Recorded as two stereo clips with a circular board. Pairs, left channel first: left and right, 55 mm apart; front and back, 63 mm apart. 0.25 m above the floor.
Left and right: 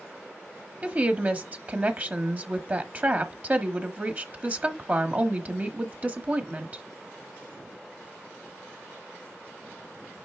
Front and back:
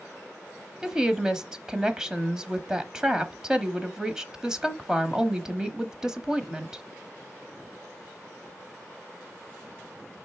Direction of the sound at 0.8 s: 110° right.